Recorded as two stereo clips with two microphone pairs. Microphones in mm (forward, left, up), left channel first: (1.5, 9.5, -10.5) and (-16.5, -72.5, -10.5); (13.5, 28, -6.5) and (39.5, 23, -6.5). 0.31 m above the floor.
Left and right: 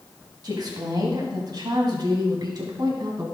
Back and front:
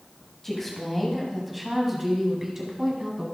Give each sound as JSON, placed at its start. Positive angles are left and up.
{"t": 0.4, "sound": "a woman speaking", "azimuth_deg": -115, "distance_m": 1.8}